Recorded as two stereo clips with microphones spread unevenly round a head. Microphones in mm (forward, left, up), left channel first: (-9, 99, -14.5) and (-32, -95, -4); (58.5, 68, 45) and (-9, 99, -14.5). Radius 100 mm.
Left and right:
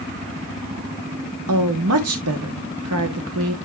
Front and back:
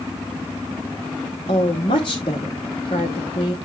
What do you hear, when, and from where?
1.5 s a woman speaking: 80° right, 1.0 m